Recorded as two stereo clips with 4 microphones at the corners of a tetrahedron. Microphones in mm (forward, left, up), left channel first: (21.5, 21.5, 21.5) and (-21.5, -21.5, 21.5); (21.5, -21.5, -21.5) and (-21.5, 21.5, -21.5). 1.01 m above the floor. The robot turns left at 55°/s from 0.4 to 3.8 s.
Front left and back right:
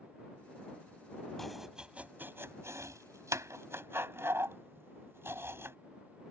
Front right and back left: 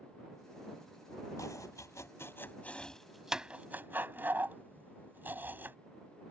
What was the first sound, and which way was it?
Chopping, 40° right.